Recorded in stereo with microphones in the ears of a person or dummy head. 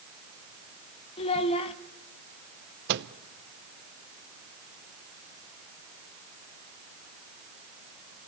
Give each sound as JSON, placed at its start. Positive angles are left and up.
{"t": 1.2, "sound": "a child speaking", "side_deg": 30, "distance_m": 1.2}
{"t": 2.9, "sound": "a microwave", "side_deg": -60, "distance_m": 0.8}